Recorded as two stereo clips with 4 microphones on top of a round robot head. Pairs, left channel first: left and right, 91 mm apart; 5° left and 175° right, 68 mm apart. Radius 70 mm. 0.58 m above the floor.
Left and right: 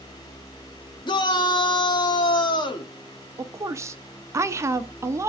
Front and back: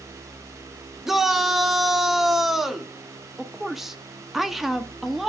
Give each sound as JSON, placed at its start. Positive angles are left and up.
{"t": 1.1, "sound": "a shout", "azimuth_deg": 100, "distance_m": 1.5}
{"t": 3.4, "sound": "a woman speaking", "azimuth_deg": -95, "distance_m": 0.8}